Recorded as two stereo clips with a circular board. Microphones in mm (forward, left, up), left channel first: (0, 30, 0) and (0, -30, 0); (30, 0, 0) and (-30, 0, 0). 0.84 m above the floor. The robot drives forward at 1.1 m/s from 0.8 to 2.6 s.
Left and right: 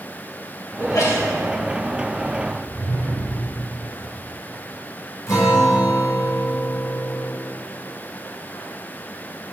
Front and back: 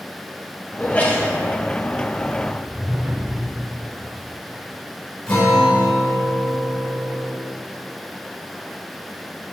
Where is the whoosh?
110° right, 0.7 m; by 3.6 s 120° right, 0.7 m.